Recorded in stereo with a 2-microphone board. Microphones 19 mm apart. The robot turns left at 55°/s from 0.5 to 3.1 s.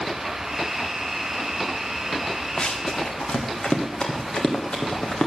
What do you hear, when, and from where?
2.6 s running footsteps: 55° left (ahead or behind), 1.9 m; by 5.3 s 65° left (ahead or behind), 4 m